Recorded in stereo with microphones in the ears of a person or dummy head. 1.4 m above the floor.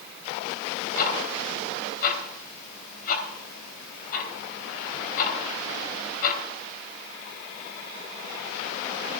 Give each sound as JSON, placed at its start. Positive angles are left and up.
{"t": 1.0, "sound": "ticking", "side_deg": 50, "distance_m": 2.5}